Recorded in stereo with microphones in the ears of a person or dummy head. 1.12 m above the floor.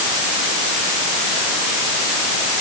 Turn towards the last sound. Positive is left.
No sound to turn to.